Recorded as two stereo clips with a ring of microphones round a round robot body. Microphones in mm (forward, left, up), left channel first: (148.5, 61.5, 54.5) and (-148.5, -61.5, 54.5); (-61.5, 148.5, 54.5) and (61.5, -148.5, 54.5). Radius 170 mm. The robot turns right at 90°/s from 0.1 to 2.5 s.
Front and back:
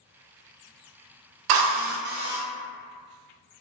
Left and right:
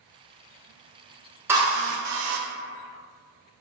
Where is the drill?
150° right, 0.5 m; by 2.4 s 70° right, 0.5 m.